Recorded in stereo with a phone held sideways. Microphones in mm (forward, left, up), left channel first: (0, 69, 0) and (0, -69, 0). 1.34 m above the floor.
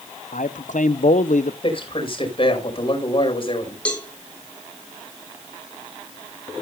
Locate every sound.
0.3 s a man speaking: 70° left (ahead or behind), 0.8 m
1.6 s a man speaking: 40° left (ahead or behind), 5 m
3.9 s a cowbell: 10° left (ahead or behind), 3 m